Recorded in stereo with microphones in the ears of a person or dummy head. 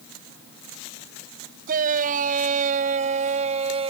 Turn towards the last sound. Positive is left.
turn(degrees=-30)  # may be behind; listen again after turning